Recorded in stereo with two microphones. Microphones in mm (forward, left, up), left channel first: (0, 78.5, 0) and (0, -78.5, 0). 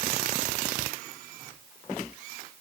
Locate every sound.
Only background noise.